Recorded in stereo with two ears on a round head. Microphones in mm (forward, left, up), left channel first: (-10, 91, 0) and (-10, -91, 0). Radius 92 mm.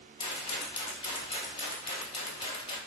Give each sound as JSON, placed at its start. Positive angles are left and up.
{"t": 0.2, "sound": "a rattle", "side_deg": 25, "distance_m": 0.7}